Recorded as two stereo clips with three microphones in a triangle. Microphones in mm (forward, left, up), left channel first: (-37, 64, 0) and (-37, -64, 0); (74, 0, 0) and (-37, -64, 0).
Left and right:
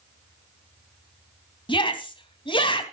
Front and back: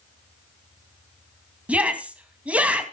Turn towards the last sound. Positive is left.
turn(degrees=130)